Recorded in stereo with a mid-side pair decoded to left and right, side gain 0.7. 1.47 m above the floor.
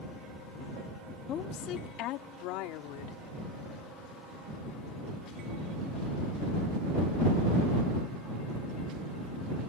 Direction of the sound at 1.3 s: 45° left.